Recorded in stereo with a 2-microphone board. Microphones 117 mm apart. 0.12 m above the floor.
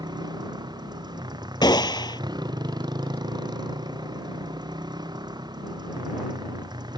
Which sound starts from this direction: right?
A motorcycle, at 0.0 s.